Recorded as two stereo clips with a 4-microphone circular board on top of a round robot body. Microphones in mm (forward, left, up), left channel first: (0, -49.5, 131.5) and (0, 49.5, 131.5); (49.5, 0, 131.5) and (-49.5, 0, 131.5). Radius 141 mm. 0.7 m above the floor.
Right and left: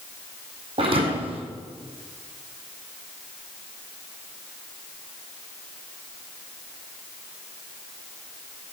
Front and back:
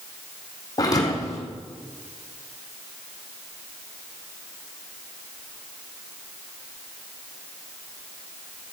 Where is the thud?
55° left, 2.5 m.